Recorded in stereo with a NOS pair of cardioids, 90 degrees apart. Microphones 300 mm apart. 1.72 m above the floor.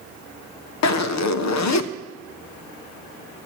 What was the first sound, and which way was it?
A zipper, 65° left.